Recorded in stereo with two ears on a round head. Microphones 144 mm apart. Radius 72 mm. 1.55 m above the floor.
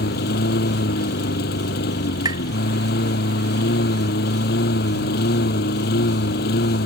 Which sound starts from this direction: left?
A lawn mower, at 0.0 s.